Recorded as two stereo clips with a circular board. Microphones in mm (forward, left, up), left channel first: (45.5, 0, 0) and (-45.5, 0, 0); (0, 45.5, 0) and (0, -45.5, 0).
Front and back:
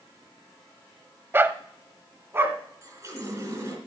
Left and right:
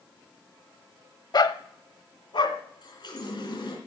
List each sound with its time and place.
1.3 s a dog barking: 120° left, 0.7 m; by 2.6 s 115° left, 1.6 m
2.8 s a running tap: 125° left, 3 m